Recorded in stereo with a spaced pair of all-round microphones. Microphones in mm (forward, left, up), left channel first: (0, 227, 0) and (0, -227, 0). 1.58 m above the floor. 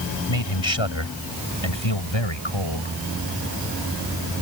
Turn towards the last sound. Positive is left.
turn(degrees=80)